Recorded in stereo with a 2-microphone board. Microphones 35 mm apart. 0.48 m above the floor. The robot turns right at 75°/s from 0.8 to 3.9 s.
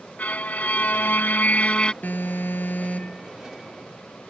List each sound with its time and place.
0.2 s a violin: 65° left; by 1.9 s 150° left
2.0 s an alarm: 60° left; by 3.3 s 160° left